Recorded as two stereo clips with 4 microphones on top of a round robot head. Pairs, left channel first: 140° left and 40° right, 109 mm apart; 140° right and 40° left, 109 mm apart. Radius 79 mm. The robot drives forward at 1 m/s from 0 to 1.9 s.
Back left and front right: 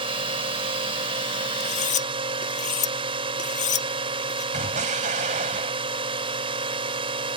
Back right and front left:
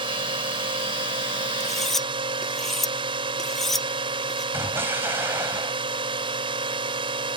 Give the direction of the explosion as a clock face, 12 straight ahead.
1 o'clock.